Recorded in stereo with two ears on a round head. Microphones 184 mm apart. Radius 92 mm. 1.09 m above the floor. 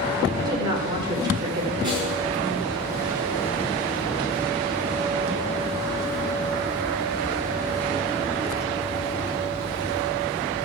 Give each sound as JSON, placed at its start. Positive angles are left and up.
{"t": 0.4, "sound": "a woman speaking", "side_deg": -20, "distance_m": 5.0}
{"t": 1.8, "sound": "a snare drum", "side_deg": -25, "distance_m": 8.0}